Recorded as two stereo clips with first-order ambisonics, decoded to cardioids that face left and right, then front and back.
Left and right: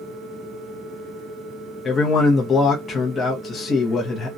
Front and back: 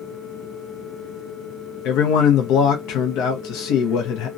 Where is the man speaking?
25° left, 0.7 m.